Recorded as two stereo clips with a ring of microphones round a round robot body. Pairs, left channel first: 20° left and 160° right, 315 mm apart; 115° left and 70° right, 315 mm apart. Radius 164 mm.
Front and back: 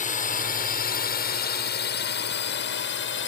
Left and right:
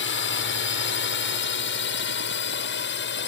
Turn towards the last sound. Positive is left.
turn(degrees=65)